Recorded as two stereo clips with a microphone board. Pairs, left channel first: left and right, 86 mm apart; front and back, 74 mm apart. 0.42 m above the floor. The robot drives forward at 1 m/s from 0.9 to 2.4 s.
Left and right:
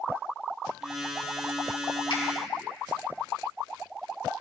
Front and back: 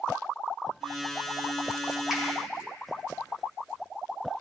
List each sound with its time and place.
2.1 s a finger snap: 95° left, 6 m